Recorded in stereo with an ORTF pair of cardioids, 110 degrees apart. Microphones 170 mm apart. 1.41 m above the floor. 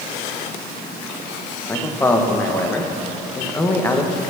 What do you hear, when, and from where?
1.7 s a man speaking: 10° left, 1.1 m